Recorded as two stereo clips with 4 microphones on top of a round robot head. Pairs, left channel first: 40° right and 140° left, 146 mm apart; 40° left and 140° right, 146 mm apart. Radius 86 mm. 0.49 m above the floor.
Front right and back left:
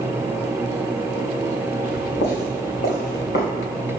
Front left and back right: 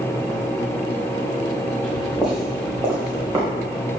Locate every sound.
1.8 s footsteps: 40° right, 2.5 m; by 3.5 s 70° right, 3 m